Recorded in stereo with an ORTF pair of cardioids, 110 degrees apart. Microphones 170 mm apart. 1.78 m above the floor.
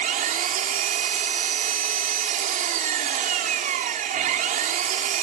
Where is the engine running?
55° right.